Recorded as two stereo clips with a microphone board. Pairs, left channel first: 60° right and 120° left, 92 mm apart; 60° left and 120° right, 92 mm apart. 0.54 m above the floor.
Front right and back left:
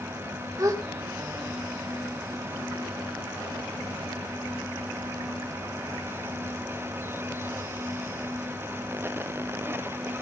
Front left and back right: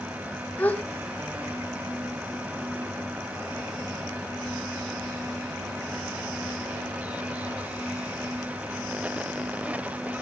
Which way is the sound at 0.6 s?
125° left.